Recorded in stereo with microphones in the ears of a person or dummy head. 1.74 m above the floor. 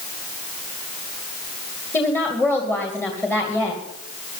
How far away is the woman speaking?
About 2 m.